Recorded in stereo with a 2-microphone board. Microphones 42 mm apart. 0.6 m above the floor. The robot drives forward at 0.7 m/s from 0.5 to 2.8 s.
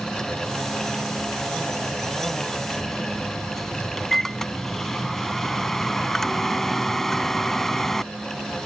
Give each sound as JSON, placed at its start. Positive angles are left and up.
{"t": 2.8, "sound": "a microwave", "side_deg": 5}